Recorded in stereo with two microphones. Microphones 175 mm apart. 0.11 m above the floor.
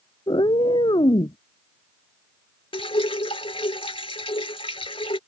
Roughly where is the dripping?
Left.